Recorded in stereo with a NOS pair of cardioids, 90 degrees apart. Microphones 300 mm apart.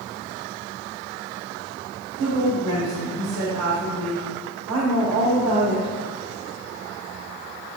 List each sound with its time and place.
2.2 s a woman speaking: 65° right, 2.5 m